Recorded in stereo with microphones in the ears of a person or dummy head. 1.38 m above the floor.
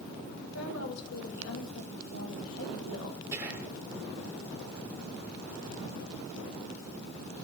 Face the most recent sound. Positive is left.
turn(degrees=-15)  # may be behind; listen again after turning